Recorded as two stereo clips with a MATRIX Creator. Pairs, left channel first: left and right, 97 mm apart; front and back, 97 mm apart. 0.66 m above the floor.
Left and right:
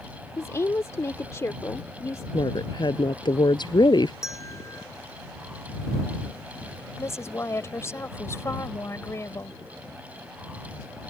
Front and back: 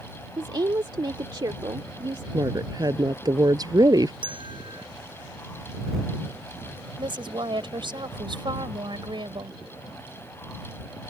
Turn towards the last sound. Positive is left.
turn(degrees=150)